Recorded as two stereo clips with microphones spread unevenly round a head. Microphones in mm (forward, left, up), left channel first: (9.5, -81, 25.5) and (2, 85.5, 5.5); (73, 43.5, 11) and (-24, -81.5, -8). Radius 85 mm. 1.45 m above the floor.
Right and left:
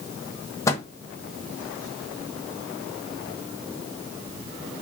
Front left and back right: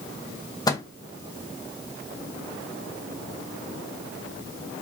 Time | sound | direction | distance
0.7 | a microwave | 15° right | 0.8 m